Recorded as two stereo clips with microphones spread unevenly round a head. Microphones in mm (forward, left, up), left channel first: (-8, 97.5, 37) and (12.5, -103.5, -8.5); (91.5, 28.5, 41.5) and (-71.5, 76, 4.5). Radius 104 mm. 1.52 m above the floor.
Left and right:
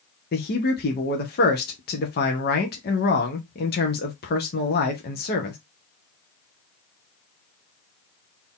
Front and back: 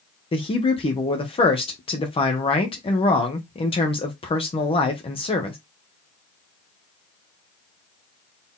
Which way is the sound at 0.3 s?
45° left.